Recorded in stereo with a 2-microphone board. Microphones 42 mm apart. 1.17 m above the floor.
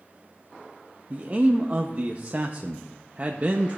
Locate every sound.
1.1 s a man speaking: 35° right (ahead or behind), 0.6 m